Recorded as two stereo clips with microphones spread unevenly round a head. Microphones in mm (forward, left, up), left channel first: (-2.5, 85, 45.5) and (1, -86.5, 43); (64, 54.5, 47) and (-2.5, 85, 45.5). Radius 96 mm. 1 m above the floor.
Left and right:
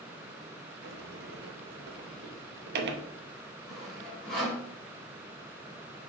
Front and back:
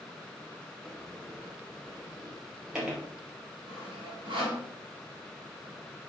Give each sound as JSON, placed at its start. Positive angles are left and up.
{"t": 0.8, "sound": "a sliding door", "azimuth_deg": -120, "distance_m": 0.9}
{"t": 3.7, "sound": "sawing", "azimuth_deg": 180, "distance_m": 3.5}